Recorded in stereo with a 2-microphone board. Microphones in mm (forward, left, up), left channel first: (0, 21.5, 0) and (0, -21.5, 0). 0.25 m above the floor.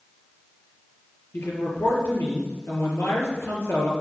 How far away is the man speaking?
About 4 m.